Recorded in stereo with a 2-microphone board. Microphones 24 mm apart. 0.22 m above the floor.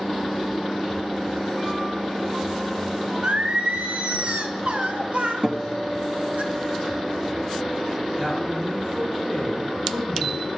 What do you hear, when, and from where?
3.2 s singing: 65° right (ahead or behind), 0.6 m
5.4 s a guitar: 50° right (ahead or behind), 1.0 m
8.2 s a man speaking: 20° right (ahead or behind), 2.5 m